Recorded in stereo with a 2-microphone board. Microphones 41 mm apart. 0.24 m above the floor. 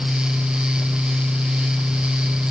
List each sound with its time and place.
Only background noise.